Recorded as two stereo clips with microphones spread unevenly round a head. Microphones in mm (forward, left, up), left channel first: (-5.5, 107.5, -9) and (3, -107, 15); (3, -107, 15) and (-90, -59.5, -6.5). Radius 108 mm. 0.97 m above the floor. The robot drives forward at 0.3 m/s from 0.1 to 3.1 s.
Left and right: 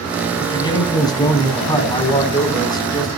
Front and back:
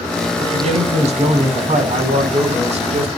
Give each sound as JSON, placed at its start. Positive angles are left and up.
{"t": 0.4, "sound": "a man speaking", "azimuth_deg": 165, "distance_m": 7.5}